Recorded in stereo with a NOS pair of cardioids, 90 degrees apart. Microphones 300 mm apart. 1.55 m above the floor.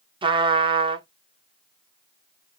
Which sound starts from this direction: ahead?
A trumpet, at 0.2 s.